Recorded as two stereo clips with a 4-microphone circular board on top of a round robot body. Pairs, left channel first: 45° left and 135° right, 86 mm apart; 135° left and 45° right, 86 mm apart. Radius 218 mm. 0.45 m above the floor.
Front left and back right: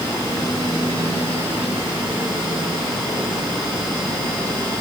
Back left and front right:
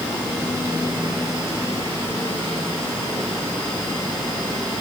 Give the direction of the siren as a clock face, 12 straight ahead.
I don't hear a siren.